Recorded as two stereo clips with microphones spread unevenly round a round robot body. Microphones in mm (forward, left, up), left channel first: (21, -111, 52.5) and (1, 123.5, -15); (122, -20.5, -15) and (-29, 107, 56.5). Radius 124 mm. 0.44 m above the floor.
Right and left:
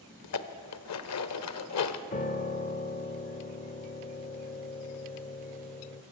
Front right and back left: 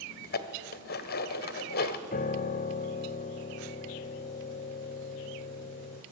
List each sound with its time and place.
0.2 s dishes clattering: 55° right, 1.4 m
2.1 s a piano: 20° right, 1.1 m